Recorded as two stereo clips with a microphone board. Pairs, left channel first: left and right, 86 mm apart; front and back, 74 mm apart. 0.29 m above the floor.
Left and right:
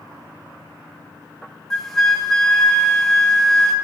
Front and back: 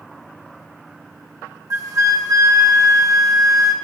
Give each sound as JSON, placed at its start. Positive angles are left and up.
{"t": 1.7, "sound": "a flute", "azimuth_deg": 175, "distance_m": 0.9}